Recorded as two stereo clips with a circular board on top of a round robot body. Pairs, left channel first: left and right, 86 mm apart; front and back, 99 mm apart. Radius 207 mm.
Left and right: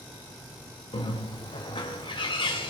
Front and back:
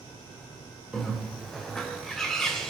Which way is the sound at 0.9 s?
85° left.